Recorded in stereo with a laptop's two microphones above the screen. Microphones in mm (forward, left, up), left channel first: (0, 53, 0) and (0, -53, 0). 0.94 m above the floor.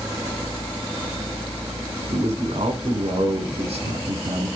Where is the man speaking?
70° right (ahead or behind), 4 m.